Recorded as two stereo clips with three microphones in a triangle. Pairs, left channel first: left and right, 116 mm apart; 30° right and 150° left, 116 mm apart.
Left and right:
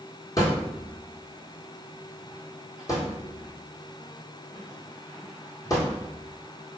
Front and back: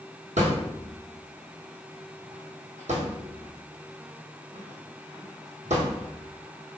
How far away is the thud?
About 1.4 m.